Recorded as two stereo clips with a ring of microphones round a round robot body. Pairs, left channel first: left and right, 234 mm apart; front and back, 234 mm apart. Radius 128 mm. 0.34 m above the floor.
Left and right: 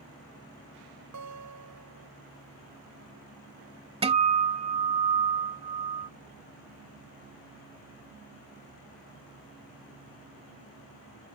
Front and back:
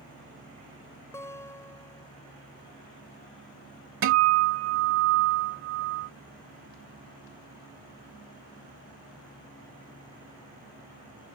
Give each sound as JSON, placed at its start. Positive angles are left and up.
{"t": 1.1, "sound": "a guitar", "azimuth_deg": -80}
{"t": 4.0, "sound": "a guitar", "azimuth_deg": -155}